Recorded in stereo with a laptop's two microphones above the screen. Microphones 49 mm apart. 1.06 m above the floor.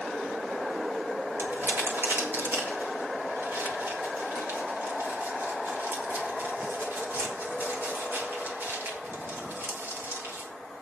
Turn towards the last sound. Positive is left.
turn(degrees=-50)  # may be behind; listen again after turning